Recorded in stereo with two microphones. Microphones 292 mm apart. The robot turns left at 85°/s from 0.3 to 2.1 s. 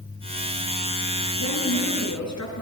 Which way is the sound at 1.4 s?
125° left.